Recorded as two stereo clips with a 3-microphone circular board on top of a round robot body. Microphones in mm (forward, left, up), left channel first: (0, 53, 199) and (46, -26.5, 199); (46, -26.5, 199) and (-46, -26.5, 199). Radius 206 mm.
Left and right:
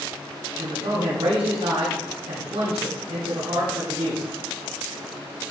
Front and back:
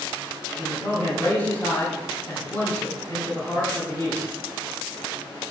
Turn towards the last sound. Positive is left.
turn(degrees=-60)